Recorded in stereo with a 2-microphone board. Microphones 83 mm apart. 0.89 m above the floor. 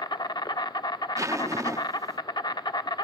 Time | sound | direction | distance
0.0 | an insect | 60° left (ahead or behind) | 0.8 m
1.2 | a zipper | 40° right (ahead or behind) | 0.8 m